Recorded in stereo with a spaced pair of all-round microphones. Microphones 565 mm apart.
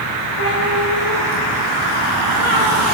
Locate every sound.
0.4 s a cat meowing: 65° right (ahead or behind), 6 m; by 2.8 s 50° right (ahead or behind), 5.5 m